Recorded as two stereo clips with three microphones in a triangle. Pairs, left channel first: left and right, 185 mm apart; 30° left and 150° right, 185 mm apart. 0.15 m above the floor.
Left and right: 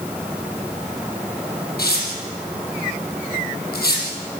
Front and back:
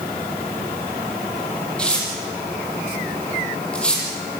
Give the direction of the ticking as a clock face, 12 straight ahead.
No ticking in this recording.